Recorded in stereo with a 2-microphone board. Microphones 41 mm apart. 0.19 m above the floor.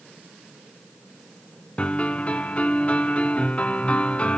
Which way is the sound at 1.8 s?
30° left (ahead or behind).